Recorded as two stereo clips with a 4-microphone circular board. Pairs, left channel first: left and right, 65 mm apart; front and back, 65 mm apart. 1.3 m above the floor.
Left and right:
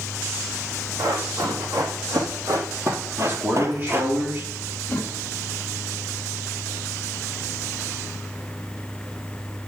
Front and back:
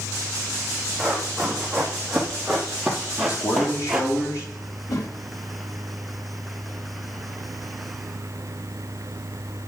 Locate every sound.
1.0 s running footsteps: 85° right, 4 m; by 4.1 s 110° right, 1.4 m
3.2 s a man speaking: 35° right, 3 m
4.9 s a whoosh: 25° left, 2.5 m